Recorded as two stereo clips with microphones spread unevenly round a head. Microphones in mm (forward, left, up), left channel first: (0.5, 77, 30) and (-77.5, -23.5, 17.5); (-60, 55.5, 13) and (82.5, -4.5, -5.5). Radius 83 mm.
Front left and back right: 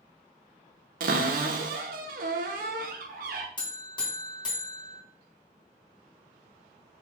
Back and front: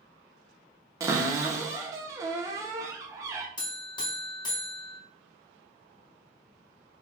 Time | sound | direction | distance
1.0 | a cupboard door | 95° right | 0.5 m
3.6 | a buzzer | 100° left | 1.2 m